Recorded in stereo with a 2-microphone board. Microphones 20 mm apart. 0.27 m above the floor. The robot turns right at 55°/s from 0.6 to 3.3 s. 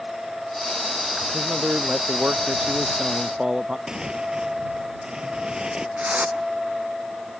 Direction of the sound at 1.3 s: 145° right.